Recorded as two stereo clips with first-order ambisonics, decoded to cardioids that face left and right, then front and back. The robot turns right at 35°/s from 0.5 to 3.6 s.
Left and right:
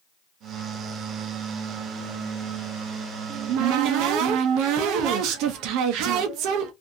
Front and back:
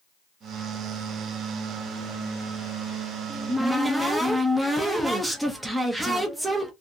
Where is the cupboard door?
105° right, 0.6 m; by 6.7 s 95° right, 0.6 m.